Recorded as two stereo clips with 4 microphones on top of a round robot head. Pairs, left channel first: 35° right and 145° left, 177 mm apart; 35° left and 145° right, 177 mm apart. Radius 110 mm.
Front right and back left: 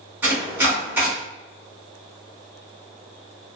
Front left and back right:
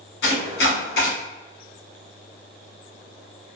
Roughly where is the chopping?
Ahead left.